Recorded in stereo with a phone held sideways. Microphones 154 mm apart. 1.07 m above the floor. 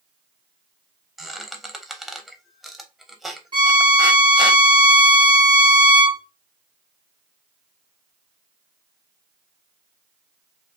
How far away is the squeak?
About 0.7 m.